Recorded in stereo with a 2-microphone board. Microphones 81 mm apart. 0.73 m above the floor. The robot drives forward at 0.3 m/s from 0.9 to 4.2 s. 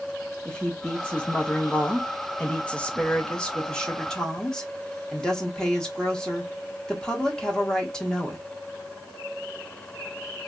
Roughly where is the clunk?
I don't hear a clunk.